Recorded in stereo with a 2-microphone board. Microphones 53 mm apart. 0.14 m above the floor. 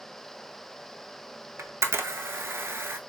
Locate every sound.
1.6 s a camera shutter: 55° right (ahead or behind), 0.5 m